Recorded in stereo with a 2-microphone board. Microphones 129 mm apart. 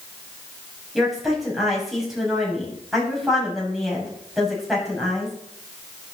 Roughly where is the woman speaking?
Centre.